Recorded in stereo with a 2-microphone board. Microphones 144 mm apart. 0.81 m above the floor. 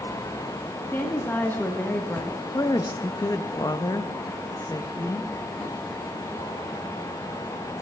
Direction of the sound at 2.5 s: 25° left (ahead or behind).